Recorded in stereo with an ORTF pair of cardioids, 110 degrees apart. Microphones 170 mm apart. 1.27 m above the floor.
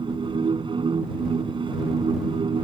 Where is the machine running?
30° right.